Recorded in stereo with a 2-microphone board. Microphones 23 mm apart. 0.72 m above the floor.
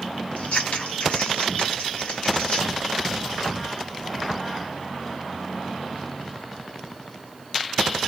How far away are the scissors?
About 1.6 m.